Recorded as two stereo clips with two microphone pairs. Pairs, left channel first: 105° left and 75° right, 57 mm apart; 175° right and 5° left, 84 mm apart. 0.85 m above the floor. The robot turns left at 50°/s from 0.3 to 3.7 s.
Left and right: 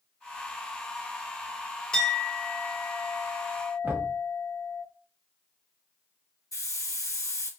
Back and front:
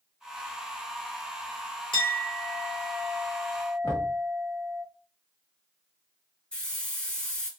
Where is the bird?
I don't hear a bird.